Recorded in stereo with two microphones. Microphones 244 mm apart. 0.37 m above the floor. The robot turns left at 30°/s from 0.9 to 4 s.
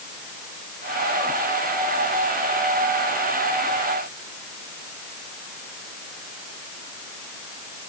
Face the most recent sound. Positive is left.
No sound to turn to.